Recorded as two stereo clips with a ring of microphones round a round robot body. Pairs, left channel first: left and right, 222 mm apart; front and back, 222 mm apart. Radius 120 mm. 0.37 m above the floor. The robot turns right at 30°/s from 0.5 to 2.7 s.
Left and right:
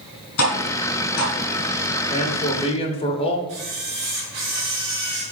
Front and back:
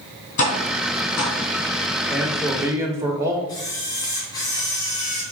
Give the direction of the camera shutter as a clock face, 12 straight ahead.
2 o'clock.